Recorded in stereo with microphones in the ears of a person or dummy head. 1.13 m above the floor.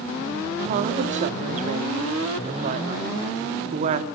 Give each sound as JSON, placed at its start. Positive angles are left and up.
{"t": 0.6, "sound": "a woman speaking", "side_deg": -50, "distance_m": 1.8}